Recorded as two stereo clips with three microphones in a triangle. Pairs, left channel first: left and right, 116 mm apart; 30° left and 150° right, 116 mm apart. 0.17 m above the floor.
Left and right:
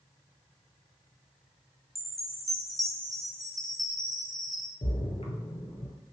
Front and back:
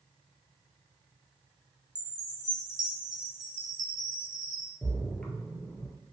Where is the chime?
Straight behind, 0.5 m.